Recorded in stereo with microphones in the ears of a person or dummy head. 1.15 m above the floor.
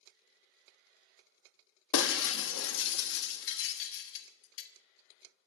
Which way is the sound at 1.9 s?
75° left (ahead or behind).